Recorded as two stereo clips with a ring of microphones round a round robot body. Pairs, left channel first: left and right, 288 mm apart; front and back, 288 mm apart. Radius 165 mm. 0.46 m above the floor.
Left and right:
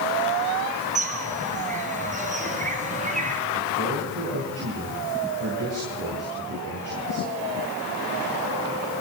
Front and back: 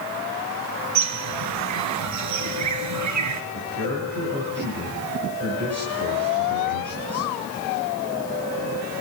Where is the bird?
155° right, 1.8 m.